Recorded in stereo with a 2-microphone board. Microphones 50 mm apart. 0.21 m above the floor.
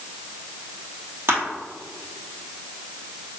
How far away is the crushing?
About 2.0 m.